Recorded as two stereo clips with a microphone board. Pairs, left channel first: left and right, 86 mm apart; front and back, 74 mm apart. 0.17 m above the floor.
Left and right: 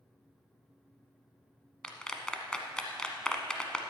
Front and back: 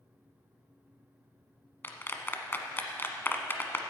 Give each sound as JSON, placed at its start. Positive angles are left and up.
{"t": 1.8, "sound": "a clap", "azimuth_deg": 20, "distance_m": 1.1}